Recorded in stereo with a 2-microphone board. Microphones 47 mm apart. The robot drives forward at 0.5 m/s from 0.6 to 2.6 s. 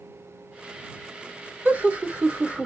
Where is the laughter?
30° right (ahead or behind), 0.9 m; by 2.7 s 25° right (ahead or behind), 1.0 m.